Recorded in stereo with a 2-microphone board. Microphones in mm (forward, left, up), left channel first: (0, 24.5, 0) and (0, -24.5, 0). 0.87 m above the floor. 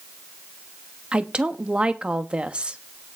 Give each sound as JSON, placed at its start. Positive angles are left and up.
{"t": 1.1, "sound": "a woman speaking", "side_deg": -25, "distance_m": 1.1}